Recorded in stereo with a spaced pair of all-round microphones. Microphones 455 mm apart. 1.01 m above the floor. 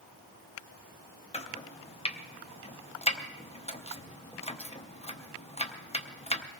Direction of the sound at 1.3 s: 15° left (ahead or behind).